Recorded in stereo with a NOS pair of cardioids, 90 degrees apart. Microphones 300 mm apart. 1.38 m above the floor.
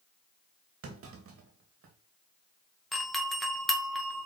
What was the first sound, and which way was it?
A clunk, 50° right.